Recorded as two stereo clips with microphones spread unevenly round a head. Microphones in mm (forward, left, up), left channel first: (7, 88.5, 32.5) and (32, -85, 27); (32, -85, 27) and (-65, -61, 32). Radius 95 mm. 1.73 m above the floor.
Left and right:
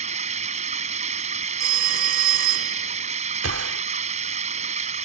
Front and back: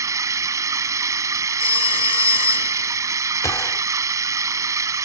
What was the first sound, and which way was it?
Running water, 135° right.